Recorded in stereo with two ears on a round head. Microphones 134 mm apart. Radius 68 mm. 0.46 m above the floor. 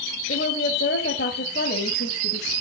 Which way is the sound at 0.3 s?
60° left (ahead or behind).